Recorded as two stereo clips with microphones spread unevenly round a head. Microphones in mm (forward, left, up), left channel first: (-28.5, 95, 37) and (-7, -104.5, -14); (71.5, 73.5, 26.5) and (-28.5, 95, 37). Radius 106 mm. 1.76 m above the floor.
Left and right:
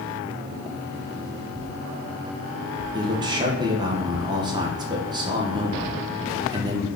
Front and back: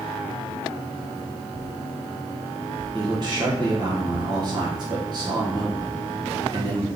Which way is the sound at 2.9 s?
160° right.